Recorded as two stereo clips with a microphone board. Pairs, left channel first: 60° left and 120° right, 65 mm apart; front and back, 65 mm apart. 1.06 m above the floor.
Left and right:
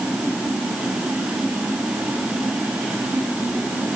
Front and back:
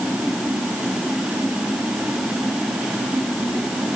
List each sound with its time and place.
Only background noise.